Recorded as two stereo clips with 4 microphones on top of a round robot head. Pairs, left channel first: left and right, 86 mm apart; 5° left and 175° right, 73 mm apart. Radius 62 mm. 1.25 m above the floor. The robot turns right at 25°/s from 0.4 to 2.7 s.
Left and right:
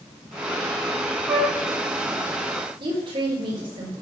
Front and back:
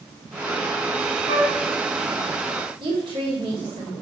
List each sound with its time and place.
1.3 s a flute: 175° right, 6 m; by 1.5 s 170° right, 6 m
2.8 s a woman speaking: 135° right, 4.5 m